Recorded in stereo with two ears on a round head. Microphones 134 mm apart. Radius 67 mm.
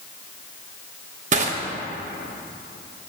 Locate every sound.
1.3 s crushing: 50° right (ahead or behind), 1.1 m